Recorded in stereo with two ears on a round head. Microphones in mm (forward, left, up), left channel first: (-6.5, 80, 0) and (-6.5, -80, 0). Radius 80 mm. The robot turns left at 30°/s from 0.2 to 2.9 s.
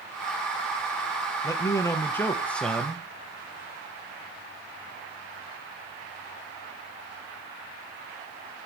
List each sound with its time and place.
1.4 s a man speaking: 20° left (ahead or behind), 0.8 m; by 3.0 s centre (ahead or behind), 0.8 m